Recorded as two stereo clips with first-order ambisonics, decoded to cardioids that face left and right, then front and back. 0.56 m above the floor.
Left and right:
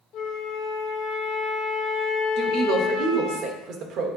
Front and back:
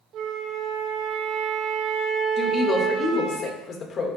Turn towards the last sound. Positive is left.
turn(degrees=-55)